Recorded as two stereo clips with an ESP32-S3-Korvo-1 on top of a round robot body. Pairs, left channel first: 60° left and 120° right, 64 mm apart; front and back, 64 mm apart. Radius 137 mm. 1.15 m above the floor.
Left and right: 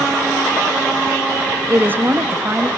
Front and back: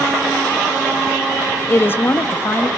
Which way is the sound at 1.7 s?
55° right.